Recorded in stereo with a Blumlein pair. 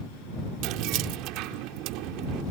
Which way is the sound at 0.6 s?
40° right.